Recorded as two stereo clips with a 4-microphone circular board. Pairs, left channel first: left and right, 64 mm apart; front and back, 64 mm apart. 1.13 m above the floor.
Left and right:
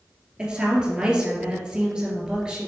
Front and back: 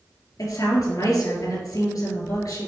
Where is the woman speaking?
10° right, 2.5 m.